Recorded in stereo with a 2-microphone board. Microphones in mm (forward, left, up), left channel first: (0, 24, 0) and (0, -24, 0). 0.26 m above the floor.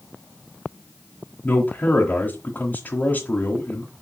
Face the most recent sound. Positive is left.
turn(degrees=35)  # may be behind; listen again after turning